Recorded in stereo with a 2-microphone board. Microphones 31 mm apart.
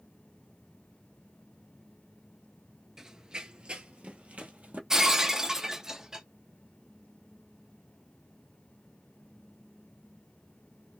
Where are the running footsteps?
20° right (ahead or behind), 0.7 m; by 4.8 s 60° right (ahead or behind), 1.4 m.